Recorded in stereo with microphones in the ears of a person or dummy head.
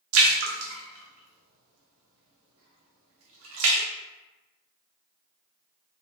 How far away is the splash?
About 0.7 m.